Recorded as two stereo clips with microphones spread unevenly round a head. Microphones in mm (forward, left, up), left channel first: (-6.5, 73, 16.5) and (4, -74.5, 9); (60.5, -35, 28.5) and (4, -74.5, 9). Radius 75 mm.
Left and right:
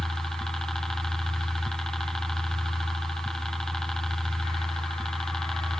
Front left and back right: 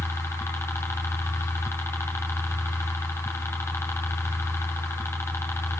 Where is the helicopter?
10° left.